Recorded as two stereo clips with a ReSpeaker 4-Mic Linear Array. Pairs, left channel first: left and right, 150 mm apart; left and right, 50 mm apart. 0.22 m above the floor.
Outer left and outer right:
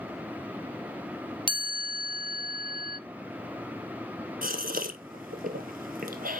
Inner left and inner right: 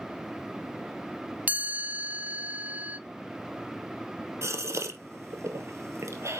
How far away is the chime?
About 1.4 m.